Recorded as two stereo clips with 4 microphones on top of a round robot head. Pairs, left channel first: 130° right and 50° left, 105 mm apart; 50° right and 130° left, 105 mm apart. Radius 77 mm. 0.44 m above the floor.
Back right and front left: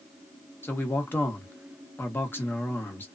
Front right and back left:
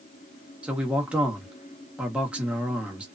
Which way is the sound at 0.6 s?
165° right.